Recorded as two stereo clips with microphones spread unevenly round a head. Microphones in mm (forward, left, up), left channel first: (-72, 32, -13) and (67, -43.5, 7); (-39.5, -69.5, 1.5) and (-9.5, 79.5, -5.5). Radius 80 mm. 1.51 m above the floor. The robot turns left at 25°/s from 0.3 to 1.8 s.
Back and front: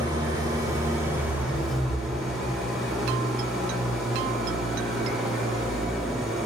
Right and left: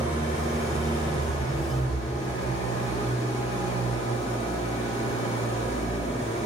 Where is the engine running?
70° right, 1.5 m; by 6.5 s 110° right, 1.5 m.